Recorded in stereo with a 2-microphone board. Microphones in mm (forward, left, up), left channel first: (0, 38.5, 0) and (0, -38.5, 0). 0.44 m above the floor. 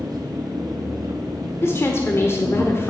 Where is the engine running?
55° right (ahead or behind), 2 m.